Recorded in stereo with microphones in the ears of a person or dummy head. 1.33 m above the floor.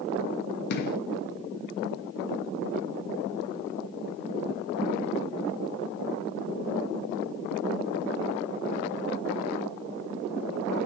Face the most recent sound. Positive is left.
turn(degrees=60)  # may be behind; listen again after turning